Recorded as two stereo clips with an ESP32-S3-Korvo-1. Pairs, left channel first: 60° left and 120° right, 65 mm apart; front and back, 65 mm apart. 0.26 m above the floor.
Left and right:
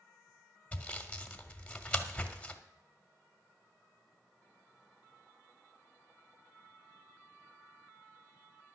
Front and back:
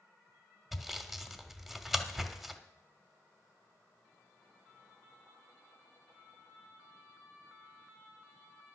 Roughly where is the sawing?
Left.